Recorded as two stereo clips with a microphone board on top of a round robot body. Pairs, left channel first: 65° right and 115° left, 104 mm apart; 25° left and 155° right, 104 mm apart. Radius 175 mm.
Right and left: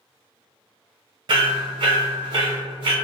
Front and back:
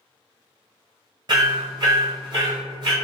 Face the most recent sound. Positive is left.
turn(degrees=155)